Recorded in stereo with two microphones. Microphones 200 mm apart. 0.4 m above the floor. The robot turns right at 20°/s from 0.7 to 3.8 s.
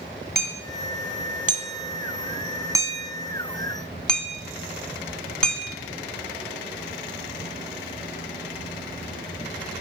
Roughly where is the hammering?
Right.